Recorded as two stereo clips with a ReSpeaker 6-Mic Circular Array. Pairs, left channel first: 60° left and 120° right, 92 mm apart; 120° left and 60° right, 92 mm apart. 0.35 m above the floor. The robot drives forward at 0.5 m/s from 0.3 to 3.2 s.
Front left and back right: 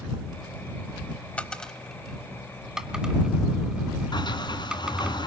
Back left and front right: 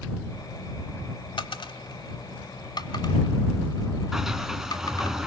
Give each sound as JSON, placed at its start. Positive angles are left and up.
{"t": 1.4, "sound": "a dropped coin", "azimuth_deg": 135, "distance_m": 0.8}
{"t": 4.1, "sound": "a sliding door", "azimuth_deg": 25, "distance_m": 2.0}